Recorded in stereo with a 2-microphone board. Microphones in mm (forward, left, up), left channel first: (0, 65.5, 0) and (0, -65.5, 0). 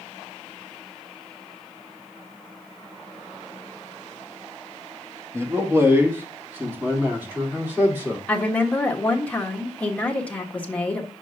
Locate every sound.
5.3 s a man speaking: 20° right (ahead or behind), 1.6 m; by 8.2 s 15° right (ahead or behind), 3 m
8.3 s a woman speaking: 10° left (ahead or behind), 1.4 m